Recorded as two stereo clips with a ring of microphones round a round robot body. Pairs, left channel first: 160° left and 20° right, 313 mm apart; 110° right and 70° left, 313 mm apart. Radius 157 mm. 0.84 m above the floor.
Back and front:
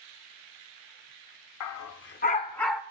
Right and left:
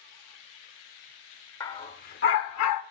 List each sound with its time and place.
1.6 s a dog barking: 170° left, 0.7 m; by 2.8 s 110° right, 0.6 m